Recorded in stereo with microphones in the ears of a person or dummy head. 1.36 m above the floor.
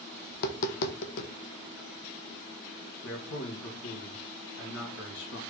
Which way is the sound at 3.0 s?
75° left (ahead or behind).